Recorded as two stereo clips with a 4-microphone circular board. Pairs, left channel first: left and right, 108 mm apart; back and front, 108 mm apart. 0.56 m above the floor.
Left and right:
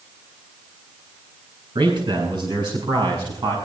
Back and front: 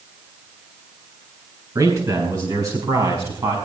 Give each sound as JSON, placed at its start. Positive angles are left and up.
{"t": 1.8, "sound": "a man speaking", "azimuth_deg": -50, "distance_m": 4.0}